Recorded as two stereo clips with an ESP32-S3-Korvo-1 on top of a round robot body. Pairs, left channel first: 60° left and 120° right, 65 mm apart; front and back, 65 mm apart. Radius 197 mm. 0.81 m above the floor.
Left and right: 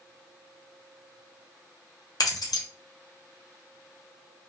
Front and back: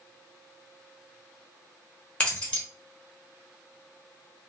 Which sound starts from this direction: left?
Keys jangling, at 2.2 s.